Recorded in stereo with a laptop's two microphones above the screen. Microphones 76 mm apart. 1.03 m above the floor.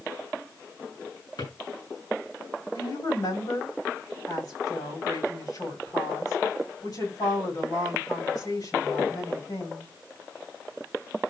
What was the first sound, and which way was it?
A drawer, 70° left (ahead or behind).